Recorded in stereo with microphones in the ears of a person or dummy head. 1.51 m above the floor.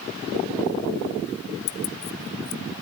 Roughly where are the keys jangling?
Left.